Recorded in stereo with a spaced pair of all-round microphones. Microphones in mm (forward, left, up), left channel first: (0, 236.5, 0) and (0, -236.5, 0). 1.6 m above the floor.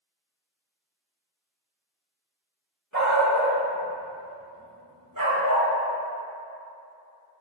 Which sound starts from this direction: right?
A dog barking, at 2.9 s.